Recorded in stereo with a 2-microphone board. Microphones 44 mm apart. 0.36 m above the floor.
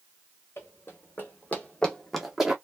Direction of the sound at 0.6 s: 60° left (ahead or behind).